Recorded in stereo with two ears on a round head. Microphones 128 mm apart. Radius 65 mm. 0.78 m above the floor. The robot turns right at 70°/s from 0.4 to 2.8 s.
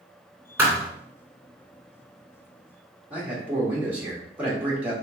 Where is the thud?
15° right (ahead or behind), 1.4 m; by 0.9 s 30° right (ahead or behind), 1.4 m.